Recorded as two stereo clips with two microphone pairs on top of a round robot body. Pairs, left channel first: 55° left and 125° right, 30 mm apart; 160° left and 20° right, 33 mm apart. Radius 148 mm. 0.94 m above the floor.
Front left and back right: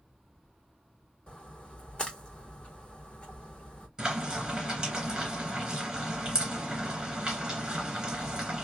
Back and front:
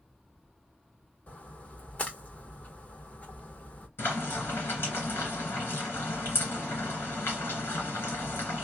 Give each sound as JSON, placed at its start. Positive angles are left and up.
{"t": 1.3, "sound": "a splash", "azimuth_deg": 110, "distance_m": 1.3}
{"t": 4.0, "sound": "frying", "azimuth_deg": 165, "distance_m": 1.6}